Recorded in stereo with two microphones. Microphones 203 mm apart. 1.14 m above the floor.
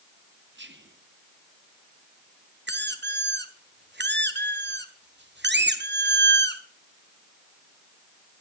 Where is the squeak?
60° right (ahead or behind), 1.5 m.